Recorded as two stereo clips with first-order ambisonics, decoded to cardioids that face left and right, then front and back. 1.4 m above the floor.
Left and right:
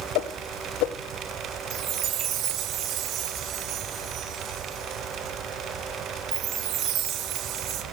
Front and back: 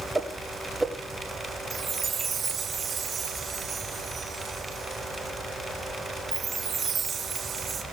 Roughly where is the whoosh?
Left.